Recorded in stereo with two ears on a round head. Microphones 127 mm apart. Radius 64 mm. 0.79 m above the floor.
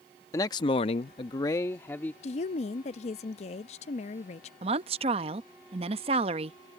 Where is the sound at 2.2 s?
45° left (ahead or behind).